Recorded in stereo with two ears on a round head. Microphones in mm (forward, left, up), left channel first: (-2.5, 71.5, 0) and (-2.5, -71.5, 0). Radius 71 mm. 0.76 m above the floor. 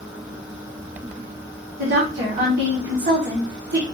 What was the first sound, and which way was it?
A woman speaking, 60° right (ahead or behind).